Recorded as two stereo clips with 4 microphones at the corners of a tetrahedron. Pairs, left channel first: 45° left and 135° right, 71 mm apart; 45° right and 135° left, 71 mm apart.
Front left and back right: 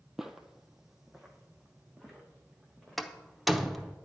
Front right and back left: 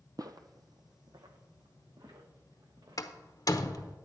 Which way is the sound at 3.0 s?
45° right.